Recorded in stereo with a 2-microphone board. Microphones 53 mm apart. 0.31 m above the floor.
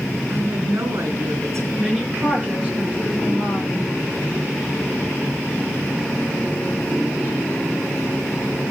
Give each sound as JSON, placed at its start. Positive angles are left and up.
{"t": 0.3, "sound": "a woman speaking", "side_deg": -70, "distance_m": 4.5}
{"t": 1.8, "sound": "a woman speaking", "side_deg": -25, "distance_m": 5.5}